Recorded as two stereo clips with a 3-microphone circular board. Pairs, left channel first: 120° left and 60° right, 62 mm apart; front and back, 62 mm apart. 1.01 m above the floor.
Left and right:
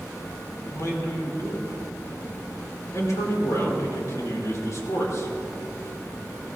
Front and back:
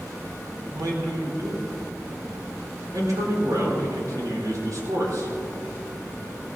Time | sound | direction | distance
0.7 | a man speaking | 155° left | 3.5 m